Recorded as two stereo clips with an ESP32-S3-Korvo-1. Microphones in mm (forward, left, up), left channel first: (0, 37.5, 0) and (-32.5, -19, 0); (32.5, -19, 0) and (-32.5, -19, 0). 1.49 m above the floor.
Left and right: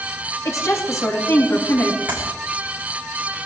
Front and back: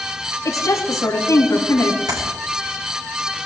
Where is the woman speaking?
30° left, 4 m.